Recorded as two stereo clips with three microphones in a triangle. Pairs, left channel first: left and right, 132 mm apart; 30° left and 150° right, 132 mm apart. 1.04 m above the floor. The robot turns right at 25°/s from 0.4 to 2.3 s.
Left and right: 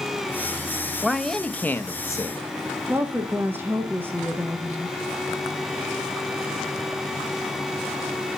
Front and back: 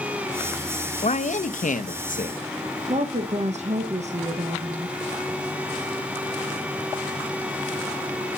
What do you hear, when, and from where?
1.0 s a man speaking: straight ahead, 0.7 m; by 2.4 s 30° left, 0.7 m
2.9 s a woman speaking: 160° right, 0.9 m